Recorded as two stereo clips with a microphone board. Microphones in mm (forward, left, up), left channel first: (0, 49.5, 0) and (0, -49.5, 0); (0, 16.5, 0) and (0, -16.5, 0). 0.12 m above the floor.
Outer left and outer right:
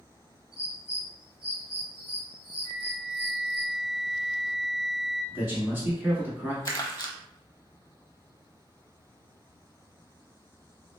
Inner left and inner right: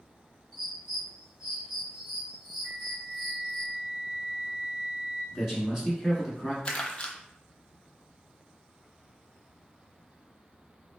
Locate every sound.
0.5 s a bird: 15° right (ahead or behind), 1.9 m
2.6 s a flute: 65° right (ahead or behind), 1.1 m
5.3 s a man speaking: 20° right (ahead or behind), 1.1 m
6.7 s crumpling: 35° left (ahead or behind), 0.6 m